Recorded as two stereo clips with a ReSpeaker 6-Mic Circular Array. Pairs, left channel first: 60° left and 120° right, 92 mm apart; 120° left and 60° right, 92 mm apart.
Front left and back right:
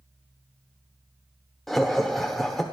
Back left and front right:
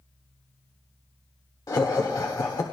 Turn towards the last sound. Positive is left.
turn(degrees=145)